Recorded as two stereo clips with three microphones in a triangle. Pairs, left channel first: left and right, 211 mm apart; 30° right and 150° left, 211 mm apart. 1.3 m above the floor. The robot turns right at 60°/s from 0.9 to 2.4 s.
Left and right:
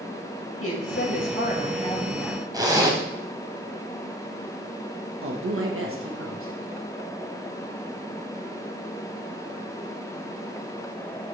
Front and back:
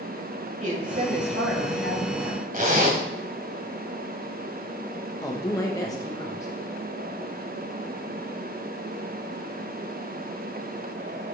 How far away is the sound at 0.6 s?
About 2.5 m.